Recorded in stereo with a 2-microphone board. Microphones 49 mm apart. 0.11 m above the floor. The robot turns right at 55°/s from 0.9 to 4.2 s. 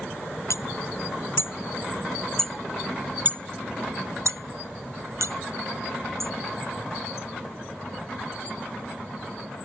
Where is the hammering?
85° left; by 6.3 s 85° right.